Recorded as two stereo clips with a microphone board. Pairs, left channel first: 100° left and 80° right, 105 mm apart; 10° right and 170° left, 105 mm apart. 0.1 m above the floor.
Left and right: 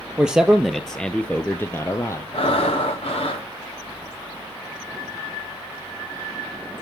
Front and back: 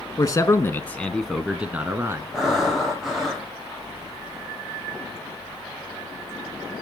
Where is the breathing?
85° left, 3 m.